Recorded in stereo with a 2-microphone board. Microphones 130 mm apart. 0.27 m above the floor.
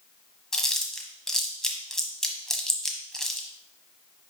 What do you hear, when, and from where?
0.5 s chewing: 5° left (ahead or behind), 1.0 m